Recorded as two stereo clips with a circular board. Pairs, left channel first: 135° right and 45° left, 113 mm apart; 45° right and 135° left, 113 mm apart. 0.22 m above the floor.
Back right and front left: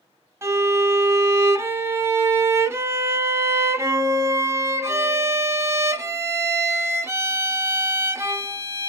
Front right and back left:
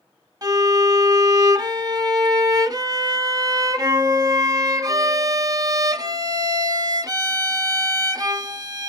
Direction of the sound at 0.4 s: 100° left.